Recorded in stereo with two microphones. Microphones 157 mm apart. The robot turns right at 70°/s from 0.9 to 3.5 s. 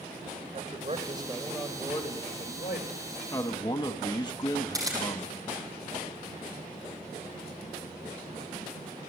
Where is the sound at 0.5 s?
45° right, 3 m; by 3.2 s 115° left, 3 m.